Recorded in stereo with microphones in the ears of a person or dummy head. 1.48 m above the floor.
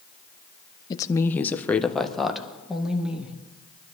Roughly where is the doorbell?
No doorbell in this recording.